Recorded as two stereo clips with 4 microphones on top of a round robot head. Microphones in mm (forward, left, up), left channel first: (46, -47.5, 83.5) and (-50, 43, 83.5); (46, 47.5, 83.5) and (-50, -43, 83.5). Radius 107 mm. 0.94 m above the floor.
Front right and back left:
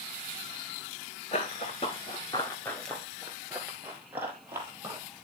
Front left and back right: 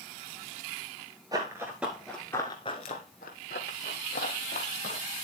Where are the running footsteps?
80° right, 1.1 m; by 5.0 s 65° left, 1.9 m.